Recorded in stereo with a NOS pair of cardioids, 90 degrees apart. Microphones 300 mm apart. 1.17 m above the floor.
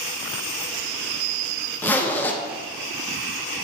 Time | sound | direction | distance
1.8 | a zipper | 5° left | 0.6 m